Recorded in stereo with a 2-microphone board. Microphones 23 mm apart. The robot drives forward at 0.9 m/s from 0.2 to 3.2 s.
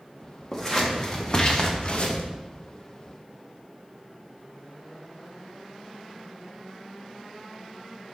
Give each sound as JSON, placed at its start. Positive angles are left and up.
{"t": 0.5, "sound": "scissors", "side_deg": 25, "distance_m": 1.8}